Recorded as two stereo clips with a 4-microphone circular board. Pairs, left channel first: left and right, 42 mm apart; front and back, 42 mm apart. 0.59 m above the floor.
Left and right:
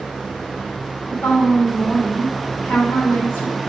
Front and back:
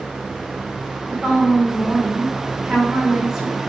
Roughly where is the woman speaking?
Left.